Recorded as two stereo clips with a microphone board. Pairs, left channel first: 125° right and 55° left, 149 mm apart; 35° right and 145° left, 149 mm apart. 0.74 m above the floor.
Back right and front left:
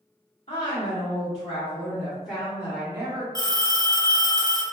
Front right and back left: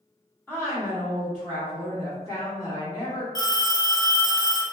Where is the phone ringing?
10° left, 0.6 m.